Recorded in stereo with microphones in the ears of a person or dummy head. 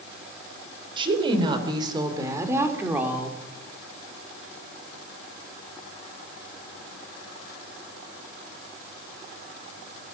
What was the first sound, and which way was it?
A woman speaking, 30° right (ahead or behind).